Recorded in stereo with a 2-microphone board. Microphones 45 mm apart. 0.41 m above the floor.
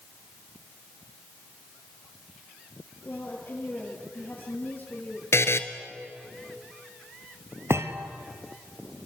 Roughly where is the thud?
Right.